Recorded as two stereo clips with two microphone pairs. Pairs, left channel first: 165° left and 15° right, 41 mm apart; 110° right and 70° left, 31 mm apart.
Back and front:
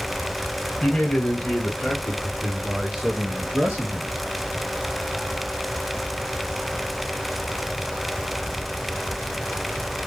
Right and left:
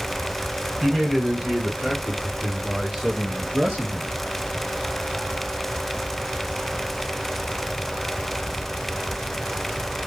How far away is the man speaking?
About 1.7 m.